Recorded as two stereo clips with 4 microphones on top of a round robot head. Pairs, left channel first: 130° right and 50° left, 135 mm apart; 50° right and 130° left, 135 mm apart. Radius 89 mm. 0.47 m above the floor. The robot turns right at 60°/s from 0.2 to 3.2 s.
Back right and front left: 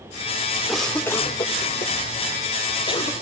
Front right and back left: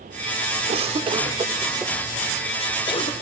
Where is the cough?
140° left, 1.6 m; by 3.1 s 75° right, 1.6 m.